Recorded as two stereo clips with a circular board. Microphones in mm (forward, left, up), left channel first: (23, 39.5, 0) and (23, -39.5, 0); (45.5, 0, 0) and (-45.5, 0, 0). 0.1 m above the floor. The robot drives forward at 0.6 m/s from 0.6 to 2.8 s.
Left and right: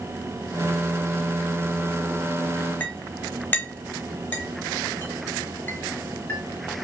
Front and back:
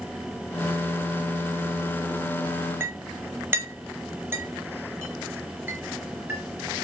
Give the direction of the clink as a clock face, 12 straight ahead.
7 o'clock.